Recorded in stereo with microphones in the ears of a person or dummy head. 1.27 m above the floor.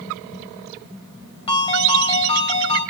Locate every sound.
1.5 s a ringtone: 25° left (ahead or behind), 3 m